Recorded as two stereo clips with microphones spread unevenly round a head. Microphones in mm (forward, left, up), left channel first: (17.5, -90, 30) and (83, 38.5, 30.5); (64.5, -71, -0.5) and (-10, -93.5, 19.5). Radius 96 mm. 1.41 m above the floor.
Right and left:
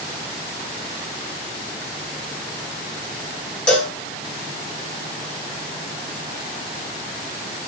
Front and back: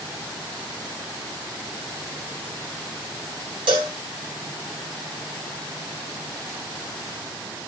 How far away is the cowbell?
About 0.6 m.